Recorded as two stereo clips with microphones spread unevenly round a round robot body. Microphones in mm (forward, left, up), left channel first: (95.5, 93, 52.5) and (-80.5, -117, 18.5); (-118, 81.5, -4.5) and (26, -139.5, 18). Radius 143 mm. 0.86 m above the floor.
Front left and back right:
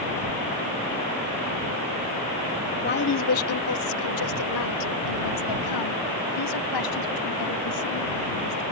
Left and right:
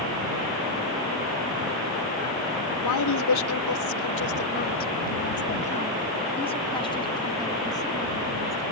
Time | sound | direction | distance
2.8 | a woman speaking | 110° left | ?